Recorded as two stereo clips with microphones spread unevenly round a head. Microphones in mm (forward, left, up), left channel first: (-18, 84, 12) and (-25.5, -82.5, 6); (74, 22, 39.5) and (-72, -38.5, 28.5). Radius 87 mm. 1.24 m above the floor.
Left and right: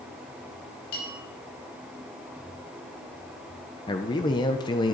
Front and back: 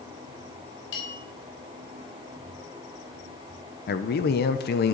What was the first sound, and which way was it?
A bell, 45° left.